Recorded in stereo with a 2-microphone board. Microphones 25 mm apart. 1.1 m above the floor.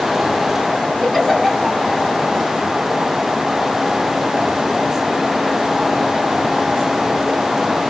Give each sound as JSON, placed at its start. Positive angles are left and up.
{"t": 1.0, "sound": "a giggle", "side_deg": -5, "distance_m": 5.0}